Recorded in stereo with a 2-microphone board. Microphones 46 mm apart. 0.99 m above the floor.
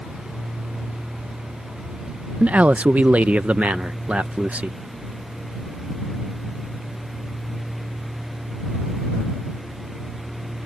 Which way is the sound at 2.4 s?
30° right (ahead or behind).